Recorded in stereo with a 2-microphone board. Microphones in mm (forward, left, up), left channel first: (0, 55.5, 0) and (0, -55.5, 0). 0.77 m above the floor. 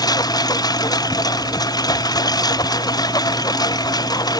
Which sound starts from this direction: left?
A lawn mower, at 0.0 s.